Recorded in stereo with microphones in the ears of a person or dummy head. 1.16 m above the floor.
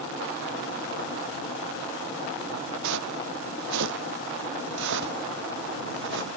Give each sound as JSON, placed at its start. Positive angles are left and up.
{"t": 2.8, "sound": "footsteps", "side_deg": -75}